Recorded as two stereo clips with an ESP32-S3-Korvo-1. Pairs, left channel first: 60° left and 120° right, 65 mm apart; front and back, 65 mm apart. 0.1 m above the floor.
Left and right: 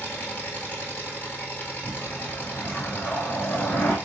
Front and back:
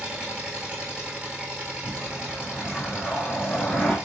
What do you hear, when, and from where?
0.0 s an engine running: 115° left, 1.1 m
1.8 s a whoosh: 65° left, 1.0 m